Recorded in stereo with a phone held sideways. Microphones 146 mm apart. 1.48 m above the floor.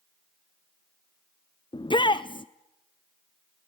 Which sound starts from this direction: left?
A shout, at 1.7 s.